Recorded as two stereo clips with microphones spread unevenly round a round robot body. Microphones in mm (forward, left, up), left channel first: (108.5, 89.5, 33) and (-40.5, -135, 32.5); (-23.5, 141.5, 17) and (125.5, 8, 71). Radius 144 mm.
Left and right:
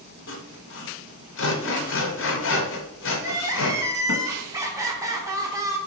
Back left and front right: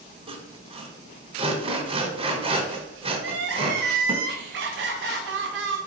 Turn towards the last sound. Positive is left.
turn(degrees=-50)